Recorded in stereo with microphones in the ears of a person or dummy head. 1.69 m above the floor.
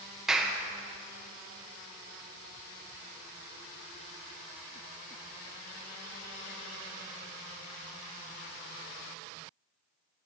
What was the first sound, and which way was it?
A clap, 10° right (ahead or behind).